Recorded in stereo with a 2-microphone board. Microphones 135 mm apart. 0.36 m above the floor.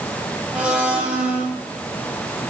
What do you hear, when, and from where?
0.5 s a blender: 10° right (ahead or behind), 2.5 m